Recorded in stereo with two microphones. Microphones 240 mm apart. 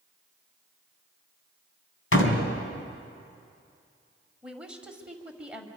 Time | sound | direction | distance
2.1 | a door slam | 60° left (ahead or behind) | 2.5 m
4.4 | a woman speaking | 5° right (ahead or behind) | 2 m